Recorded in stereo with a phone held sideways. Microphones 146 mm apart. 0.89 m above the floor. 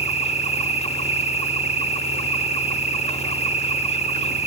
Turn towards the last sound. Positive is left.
turn(degrees=45)  # may be behind; listen again after turning